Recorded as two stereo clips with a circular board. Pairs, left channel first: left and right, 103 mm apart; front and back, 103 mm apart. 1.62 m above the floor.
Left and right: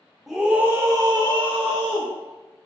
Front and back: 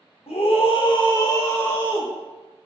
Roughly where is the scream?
Ahead.